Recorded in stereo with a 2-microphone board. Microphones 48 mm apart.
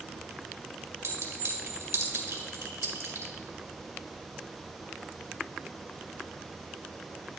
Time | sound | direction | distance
1.0 | a clink | 85° right | 2.0 m